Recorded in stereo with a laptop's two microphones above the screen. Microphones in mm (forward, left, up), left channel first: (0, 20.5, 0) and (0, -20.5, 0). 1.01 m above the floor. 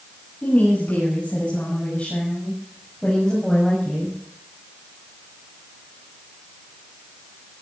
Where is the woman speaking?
45° left (ahead or behind), 8 m; by 4.2 s 5° left (ahead or behind), 6.5 m.